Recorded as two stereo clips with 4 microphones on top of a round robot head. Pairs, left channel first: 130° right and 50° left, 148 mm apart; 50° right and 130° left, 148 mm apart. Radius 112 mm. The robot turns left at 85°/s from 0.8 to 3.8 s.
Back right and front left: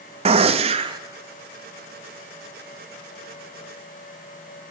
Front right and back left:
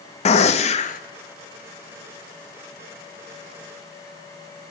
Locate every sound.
0.2 s a gunshot: straight ahead, 0.6 m; by 1.0 s 20° right, 0.6 m